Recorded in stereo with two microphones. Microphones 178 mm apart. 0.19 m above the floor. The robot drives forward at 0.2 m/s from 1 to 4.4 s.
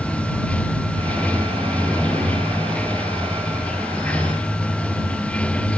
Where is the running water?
5° left (ahead or behind).